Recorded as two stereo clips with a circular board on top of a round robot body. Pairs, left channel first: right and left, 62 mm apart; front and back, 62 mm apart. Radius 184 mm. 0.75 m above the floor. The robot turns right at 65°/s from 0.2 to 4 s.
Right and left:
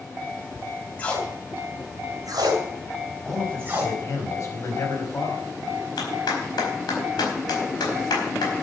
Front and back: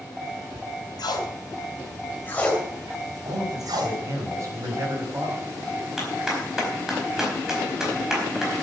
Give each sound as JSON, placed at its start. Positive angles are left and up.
{"t": 1.0, "sound": "tape being pulled", "azimuth_deg": -20, "distance_m": 2.5}
{"t": 3.2, "sound": "a man speaking", "azimuth_deg": 175, "distance_m": 5.0}
{"t": 6.0, "sound": "a clap", "azimuth_deg": -95, "distance_m": 4.5}